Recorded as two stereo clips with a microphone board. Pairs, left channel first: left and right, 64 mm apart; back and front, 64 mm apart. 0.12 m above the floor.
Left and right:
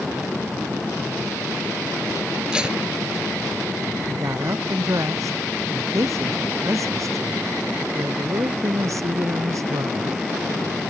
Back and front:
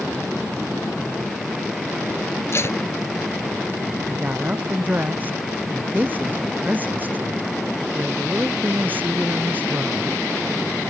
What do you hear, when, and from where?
2.5 s tape being pulled: 160° right
4.1 s a woman speaking: 60° right